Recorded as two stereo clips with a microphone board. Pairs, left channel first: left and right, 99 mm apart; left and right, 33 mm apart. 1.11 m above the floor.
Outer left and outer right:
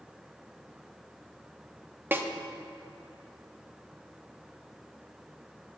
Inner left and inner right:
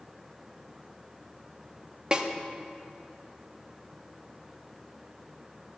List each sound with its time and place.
2.1 s a snare drum: 20° right (ahead or behind), 0.5 m